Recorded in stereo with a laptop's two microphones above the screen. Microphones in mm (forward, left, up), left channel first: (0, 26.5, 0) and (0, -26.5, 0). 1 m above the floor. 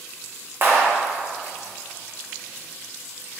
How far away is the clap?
About 0.8 m.